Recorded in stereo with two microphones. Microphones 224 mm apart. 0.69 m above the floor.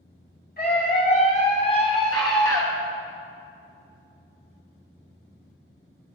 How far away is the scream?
About 2 m.